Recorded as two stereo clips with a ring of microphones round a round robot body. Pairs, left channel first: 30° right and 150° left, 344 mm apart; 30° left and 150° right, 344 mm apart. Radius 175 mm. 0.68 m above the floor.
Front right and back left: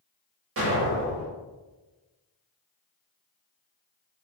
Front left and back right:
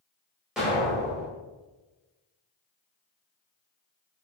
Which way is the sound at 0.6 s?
125° left.